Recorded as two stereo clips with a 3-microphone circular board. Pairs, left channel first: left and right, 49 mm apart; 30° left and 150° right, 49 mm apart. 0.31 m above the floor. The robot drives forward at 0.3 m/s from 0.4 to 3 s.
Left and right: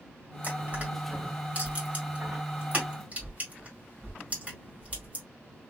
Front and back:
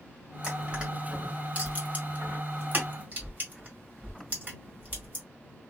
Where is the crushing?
90° right, 1.6 m; by 5.2 s 130° right, 1.8 m.